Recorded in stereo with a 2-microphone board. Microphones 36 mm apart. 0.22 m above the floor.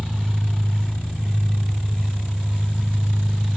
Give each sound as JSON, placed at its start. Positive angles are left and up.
{"t": 0.0, "sound": "an engine running", "side_deg": -20, "distance_m": 3.0}